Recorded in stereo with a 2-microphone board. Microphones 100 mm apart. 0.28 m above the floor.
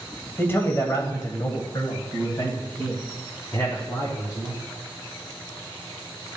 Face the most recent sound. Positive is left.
turn(degrees=40)  # may be behind; listen again after turning